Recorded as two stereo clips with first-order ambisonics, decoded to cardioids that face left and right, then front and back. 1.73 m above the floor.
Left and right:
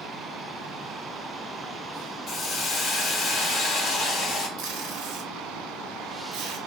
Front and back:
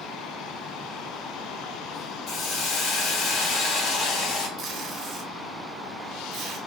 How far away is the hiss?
About 1.6 m.